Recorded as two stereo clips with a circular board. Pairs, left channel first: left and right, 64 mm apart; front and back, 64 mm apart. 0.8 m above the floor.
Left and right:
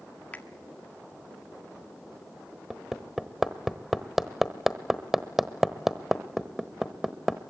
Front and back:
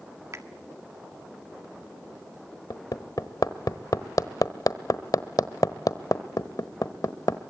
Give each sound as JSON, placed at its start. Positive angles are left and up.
{"t": 0.3, "sound": "a finger snap", "azimuth_deg": 150, "distance_m": 1.7}
{"t": 2.7, "sound": "hammering", "azimuth_deg": -5, "distance_m": 1.1}